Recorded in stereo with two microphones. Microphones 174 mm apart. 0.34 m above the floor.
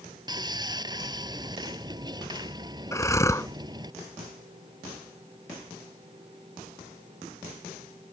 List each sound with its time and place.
0.3 s sawing: 25° right (ahead or behind)
2.9 s breathing: 20° left (ahead or behind)